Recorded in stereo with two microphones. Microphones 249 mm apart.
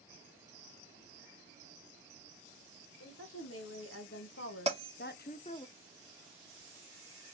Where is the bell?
25° right (ahead or behind), 1.3 m.